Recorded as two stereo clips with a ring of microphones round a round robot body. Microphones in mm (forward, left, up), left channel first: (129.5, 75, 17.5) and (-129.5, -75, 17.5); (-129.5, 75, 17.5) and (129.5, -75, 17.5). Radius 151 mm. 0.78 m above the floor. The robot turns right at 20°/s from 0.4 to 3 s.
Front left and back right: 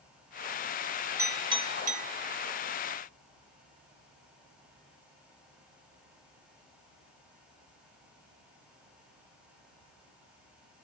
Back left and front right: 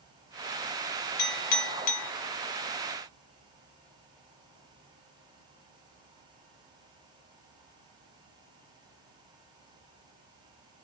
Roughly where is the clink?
Behind left.